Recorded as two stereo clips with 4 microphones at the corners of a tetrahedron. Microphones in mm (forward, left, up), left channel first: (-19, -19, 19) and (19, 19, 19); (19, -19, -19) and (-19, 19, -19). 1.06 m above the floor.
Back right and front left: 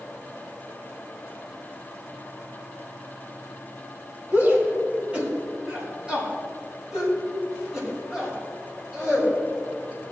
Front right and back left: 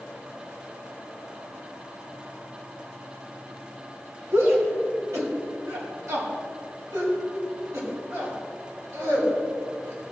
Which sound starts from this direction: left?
A shout, at 4.3 s.